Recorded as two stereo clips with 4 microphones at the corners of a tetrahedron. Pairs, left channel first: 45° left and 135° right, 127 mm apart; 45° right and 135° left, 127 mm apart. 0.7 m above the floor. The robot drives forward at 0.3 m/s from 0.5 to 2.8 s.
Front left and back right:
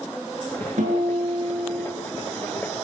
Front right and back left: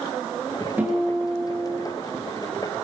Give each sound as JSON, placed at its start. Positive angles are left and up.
{"t": 0.8, "sound": "a guitar", "azimuth_deg": -150, "distance_m": 8.0}